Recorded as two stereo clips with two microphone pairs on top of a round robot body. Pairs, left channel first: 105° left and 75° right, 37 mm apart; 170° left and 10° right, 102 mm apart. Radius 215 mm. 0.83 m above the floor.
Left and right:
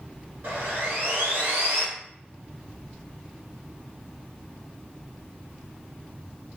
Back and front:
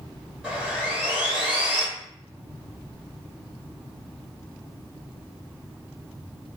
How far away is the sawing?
About 1.4 m.